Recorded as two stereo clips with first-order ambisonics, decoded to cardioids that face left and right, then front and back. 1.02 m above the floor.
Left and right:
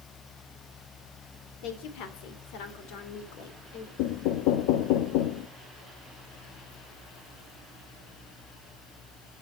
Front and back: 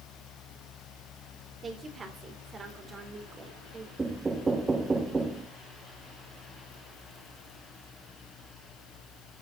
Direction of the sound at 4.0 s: 105° left.